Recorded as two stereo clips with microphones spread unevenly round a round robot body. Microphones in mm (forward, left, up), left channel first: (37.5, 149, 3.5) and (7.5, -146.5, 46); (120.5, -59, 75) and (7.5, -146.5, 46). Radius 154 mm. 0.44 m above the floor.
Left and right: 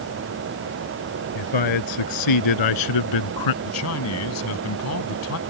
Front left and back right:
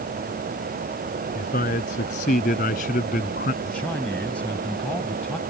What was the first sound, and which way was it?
A man speaking, 95° left.